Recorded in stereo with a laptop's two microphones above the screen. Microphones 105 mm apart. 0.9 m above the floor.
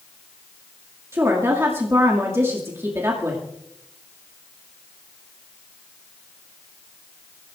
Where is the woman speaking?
25° right (ahead or behind), 2 m.